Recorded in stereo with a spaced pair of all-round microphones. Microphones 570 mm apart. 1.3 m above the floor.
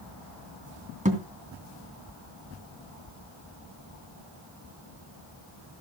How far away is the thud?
About 2.5 m.